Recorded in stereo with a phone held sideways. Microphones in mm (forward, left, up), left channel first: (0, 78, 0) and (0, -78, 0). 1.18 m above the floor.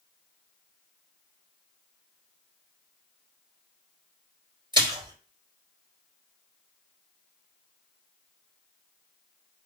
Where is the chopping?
No chopping in this recording.